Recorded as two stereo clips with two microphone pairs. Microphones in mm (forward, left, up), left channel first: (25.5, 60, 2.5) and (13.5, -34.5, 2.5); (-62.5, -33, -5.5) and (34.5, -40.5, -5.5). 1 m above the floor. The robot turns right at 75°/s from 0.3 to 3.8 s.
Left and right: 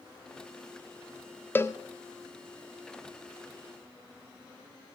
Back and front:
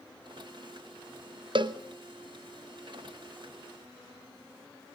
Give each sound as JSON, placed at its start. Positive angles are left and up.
{"t": 1.6, "sound": "a cowbell", "azimuth_deg": 15, "distance_m": 0.9}